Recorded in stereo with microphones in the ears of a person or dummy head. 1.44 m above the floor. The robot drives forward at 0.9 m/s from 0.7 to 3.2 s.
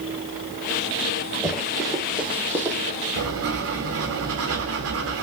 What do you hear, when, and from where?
1.4 s running footsteps: 5° left (ahead or behind), 4.5 m; by 2.8 s 15° right (ahead or behind), 2.5 m
3.2 s writing: 70° right (ahead or behind), 2.5 m